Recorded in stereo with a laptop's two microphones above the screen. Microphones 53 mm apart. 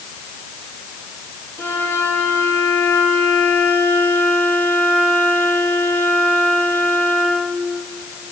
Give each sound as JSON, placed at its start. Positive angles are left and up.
{"t": 1.6, "sound": "a violin", "side_deg": 55, "distance_m": 9.0}